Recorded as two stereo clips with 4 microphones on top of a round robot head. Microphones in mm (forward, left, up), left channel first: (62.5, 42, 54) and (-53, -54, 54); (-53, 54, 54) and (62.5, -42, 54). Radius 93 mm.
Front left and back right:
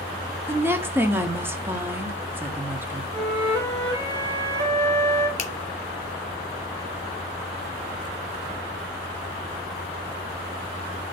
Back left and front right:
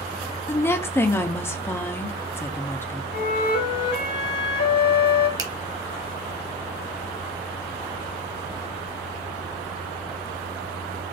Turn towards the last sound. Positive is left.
turn(degrees=20)